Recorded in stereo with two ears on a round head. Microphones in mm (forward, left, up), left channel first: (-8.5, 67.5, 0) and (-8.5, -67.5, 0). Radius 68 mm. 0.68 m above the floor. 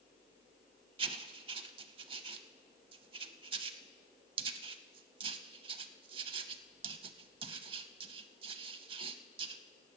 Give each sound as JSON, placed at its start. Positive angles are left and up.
{"t": 1.0, "sound": "writing", "side_deg": -35, "distance_m": 0.6}